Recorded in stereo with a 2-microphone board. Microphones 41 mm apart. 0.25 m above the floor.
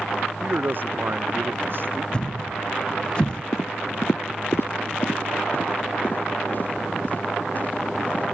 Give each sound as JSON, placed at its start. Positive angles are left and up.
{"t": 0.4, "sound": "a man speaking", "side_deg": -45}
{"t": 2.1, "sound": "a thud", "side_deg": 25}
{"t": 3.5, "sound": "footsteps", "side_deg": 80}